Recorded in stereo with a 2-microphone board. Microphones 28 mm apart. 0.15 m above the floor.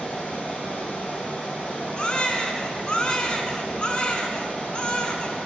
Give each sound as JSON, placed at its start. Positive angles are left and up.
{"t": 0.0, "sound": "running water", "side_deg": 65, "distance_m": 2.5}
{"t": 2.0, "sound": "a baby crying", "side_deg": 35, "distance_m": 0.7}